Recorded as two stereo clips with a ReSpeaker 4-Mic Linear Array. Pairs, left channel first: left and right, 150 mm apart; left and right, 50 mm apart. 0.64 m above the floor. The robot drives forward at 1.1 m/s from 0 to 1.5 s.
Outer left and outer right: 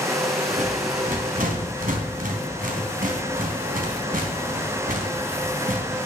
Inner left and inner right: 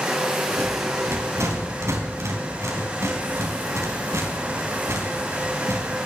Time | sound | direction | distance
0.5 | a rattle | 60° right (ahead or behind) | 4.5 m